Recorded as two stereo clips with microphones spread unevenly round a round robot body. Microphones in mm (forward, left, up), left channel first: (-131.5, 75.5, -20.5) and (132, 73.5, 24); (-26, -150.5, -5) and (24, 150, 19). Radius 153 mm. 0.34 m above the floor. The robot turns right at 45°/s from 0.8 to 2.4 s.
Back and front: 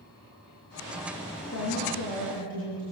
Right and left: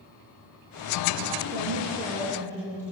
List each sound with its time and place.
1.5 s a woman speaking: 135° left, 8 m; by 2.8 s 175° left, 8 m